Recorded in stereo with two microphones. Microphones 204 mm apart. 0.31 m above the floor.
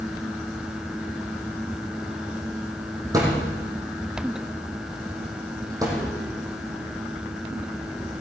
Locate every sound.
3.1 s a thud: 15° right (ahead or behind), 5 m